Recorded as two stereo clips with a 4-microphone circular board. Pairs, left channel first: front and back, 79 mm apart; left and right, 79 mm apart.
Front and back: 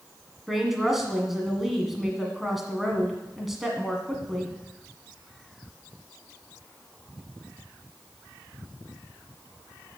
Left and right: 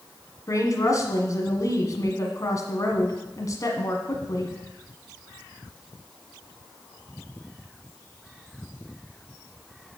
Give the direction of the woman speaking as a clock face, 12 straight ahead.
9 o'clock.